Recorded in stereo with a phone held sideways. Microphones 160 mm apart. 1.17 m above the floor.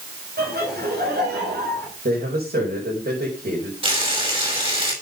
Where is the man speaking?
85° right, 6 m.